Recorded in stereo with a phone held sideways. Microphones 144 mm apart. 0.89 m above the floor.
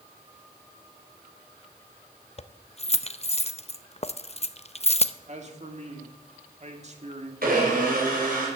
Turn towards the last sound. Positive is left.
turn(degrees=-75)  # may be behind; listen again after turning